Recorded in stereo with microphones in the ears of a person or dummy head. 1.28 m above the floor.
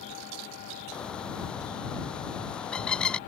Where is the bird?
5° left (ahead or behind).